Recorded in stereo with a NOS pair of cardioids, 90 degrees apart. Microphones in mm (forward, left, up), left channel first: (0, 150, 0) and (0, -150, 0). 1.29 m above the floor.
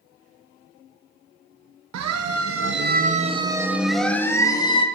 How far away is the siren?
About 2.5 m.